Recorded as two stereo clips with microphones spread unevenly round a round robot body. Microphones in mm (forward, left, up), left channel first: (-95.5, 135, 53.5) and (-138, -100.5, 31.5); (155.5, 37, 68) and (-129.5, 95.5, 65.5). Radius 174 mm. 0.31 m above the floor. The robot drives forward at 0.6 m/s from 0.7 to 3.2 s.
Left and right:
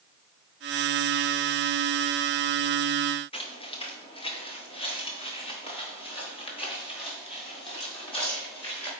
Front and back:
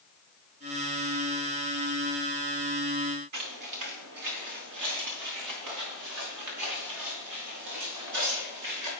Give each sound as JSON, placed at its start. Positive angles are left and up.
{"t": 3.3, "sound": "footsteps", "azimuth_deg": 145, "distance_m": 1.8}